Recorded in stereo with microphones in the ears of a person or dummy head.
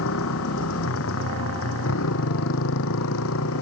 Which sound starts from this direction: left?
A motorcycle, at 0.0 s.